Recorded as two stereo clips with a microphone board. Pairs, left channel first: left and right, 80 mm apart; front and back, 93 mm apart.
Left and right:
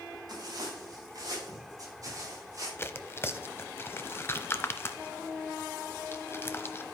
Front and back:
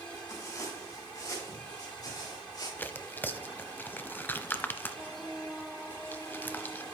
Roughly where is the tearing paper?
Ahead left.